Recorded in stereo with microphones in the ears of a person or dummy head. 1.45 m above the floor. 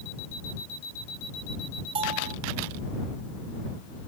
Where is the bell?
30° right (ahead or behind).